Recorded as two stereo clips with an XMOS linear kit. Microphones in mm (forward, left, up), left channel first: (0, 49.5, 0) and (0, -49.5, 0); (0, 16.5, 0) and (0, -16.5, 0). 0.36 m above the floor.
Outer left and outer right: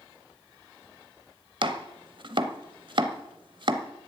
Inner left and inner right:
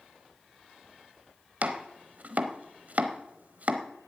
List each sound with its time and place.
1.6 s chopping: 55° right (ahead or behind), 0.9 m